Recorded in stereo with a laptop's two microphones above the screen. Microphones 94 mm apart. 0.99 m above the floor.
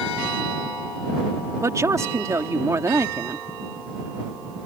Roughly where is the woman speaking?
Right.